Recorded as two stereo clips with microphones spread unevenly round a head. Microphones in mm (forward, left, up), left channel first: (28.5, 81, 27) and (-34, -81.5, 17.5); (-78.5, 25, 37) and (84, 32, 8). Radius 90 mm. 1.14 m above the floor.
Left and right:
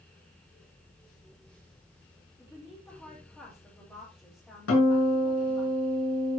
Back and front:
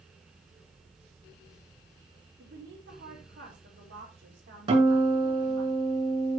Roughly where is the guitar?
Ahead left.